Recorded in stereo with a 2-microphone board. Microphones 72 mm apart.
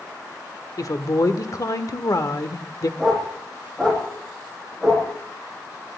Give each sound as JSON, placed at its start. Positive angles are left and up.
{"t": 0.8, "sound": "a woman speaking", "side_deg": 55, "distance_m": 1.3}
{"t": 3.0, "sound": "a dog barking", "side_deg": 5, "distance_m": 8.0}